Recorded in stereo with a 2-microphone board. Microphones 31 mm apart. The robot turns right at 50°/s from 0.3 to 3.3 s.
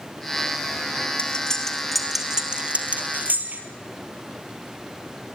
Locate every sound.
1.2 s cutlery clinking: 40° left (ahead or behind), 3 m; by 3.6 s 60° right (ahead or behind), 3 m